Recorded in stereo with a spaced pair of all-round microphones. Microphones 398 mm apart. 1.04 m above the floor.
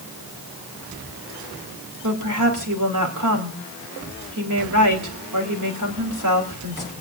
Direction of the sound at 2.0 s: 50° right (ahead or behind).